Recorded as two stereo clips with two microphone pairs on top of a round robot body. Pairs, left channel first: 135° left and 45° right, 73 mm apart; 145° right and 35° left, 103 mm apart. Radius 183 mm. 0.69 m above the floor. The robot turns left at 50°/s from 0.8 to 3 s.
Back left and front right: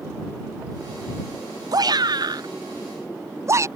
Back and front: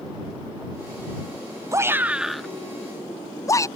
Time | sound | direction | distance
1.7 | a shout | 25° right | ?